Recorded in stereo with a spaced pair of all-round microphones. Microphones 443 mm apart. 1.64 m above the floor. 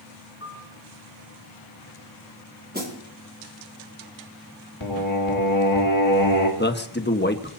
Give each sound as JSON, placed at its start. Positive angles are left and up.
{"t": 0.4, "sound": "a piano", "side_deg": 30, "distance_m": 3.5}
{"t": 2.7, "sound": "a snare drum", "side_deg": -20, "distance_m": 4.5}
{"t": 4.8, "sound": "singing", "side_deg": 80, "distance_m": 3.0}
{"t": 6.6, "sound": "a man speaking", "side_deg": 25, "distance_m": 1.3}